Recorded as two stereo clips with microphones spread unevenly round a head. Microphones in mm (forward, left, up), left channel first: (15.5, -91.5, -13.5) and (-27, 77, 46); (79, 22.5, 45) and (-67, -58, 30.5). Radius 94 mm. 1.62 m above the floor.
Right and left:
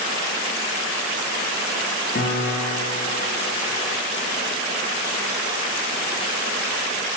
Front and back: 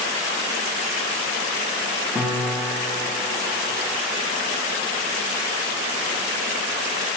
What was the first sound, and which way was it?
A piano, 55° right.